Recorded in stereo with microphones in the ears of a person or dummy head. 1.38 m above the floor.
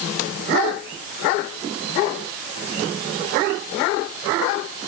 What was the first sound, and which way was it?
Only background noise.